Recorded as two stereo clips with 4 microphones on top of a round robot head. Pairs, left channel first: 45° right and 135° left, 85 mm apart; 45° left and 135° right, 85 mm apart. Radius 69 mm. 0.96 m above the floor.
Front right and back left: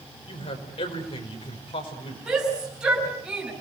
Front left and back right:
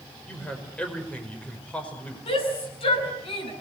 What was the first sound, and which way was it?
A man speaking, 30° right.